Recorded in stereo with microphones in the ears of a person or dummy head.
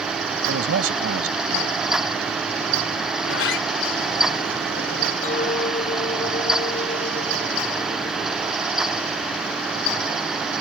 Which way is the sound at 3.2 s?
75° left (ahead or behind).